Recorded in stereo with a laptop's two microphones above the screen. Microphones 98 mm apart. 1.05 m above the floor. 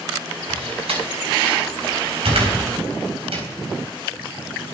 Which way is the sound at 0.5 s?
80° right.